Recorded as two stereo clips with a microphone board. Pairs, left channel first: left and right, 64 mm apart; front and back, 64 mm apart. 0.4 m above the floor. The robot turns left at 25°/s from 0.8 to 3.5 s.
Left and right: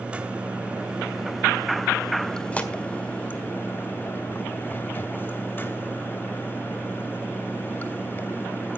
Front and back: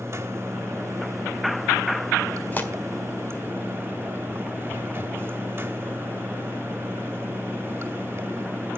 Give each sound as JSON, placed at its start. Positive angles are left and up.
{"t": 0.0, "sound": "running water", "azimuth_deg": -155, "distance_m": 1.7}
{"t": 2.5, "sound": "tearing paper", "azimuth_deg": 40, "distance_m": 1.6}